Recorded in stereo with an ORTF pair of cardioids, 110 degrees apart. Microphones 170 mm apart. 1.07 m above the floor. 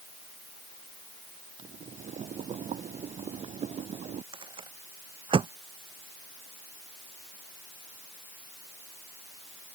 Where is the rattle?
30° right.